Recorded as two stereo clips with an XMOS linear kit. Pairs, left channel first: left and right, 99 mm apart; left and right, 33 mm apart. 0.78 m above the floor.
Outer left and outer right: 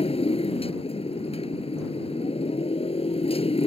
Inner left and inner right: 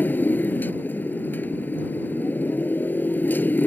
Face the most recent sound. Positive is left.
turn(degrees=80)